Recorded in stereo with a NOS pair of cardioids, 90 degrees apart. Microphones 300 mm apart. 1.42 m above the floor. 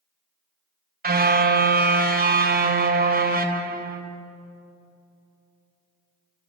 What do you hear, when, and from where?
1.0 s a car horn: 30° right, 4.5 m